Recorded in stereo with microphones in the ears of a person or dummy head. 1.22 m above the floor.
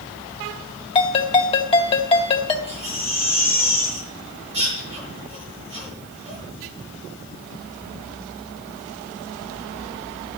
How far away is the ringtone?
About 1.9 m.